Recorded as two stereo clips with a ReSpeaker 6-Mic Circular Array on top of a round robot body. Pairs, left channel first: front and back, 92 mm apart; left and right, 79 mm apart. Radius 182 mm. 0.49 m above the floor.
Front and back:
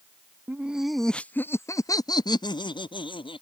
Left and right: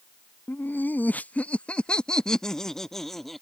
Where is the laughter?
130° left; by 3.4 s 5° left.